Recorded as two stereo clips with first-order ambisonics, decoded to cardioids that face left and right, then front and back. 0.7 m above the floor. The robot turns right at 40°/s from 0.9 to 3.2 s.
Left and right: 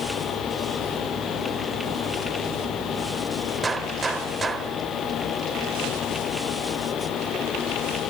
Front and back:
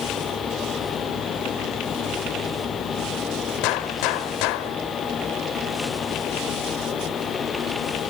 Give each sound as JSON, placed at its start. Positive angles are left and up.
{"t": 3.6, "sound": "a gunshot", "azimuth_deg": -15, "distance_m": 1.3}